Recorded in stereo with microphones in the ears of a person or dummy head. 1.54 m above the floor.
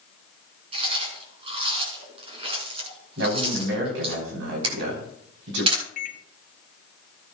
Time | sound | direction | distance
0.7 | chewing | 35° right (ahead or behind) | 4.5 m
3.2 | a man speaking | 75° right (ahead or behind) | 3.5 m
4.6 | a camera shutter | 30° right (ahead or behind) | 3.5 m
6.0 | a microwave | 55° left (ahead or behind) | 0.8 m